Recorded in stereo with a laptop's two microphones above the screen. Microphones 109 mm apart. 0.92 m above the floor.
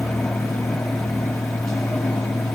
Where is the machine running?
5° left (ahead or behind), 1.9 m.